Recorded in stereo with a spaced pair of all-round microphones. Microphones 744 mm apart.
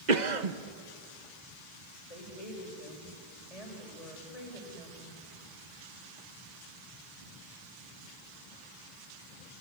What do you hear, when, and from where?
0.1 s a cough: 65° right (ahead or behind), 1.4 m
2.1 s a woman speaking: 50° left (ahead or behind), 6 m